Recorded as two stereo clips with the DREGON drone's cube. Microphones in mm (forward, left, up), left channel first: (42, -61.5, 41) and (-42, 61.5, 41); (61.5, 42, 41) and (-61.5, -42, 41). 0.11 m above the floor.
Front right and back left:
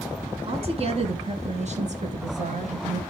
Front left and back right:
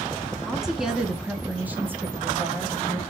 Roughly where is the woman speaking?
Behind left.